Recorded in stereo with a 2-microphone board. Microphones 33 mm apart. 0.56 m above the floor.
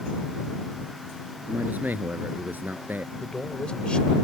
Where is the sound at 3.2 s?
35° left (ahead or behind).